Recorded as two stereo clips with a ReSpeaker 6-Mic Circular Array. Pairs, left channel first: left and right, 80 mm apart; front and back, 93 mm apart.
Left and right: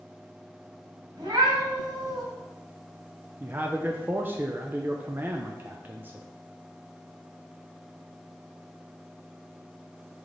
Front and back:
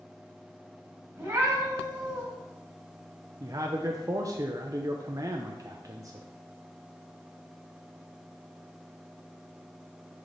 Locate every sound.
1.2 s a cat meowing: 115° right, 2.5 m
3.4 s a man speaking: 145° right, 0.6 m